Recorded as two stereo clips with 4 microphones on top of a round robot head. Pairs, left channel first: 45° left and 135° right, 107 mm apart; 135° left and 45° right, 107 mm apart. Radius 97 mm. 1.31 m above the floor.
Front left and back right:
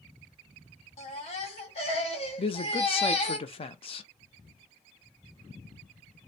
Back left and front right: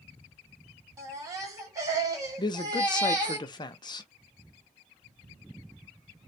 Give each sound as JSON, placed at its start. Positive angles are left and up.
{"t": 1.0, "sound": "a baby crying", "azimuth_deg": 15, "distance_m": 1.0}
{"t": 2.4, "sound": "a man speaking", "azimuth_deg": 85, "distance_m": 0.6}